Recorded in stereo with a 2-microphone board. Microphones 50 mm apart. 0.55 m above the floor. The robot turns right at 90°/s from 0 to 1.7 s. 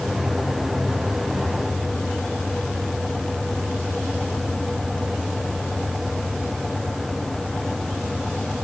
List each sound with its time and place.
Only background noise.